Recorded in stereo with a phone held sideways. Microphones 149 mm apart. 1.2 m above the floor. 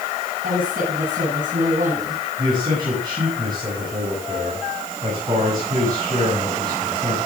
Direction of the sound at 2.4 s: 30° right (ahead or behind).